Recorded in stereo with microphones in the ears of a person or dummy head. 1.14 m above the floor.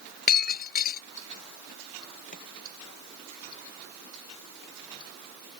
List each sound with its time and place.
0.3 s breaking glass: 45° left (ahead or behind)
2.3 s chopping: 45° left (ahead or behind)